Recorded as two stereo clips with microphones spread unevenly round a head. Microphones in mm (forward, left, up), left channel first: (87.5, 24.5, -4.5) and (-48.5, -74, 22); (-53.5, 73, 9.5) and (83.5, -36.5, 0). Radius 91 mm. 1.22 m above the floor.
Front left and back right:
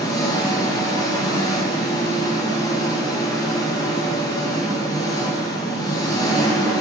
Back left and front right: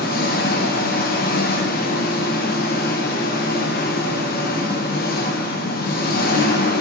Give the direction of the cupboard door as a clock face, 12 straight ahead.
No cupboard door in this recording.